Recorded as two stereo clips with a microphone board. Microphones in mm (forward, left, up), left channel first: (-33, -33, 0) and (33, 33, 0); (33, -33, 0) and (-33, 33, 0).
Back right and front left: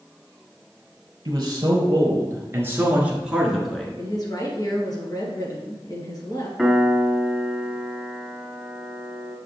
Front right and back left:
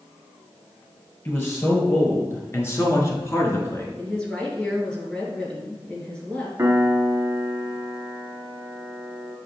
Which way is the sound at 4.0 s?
120° right.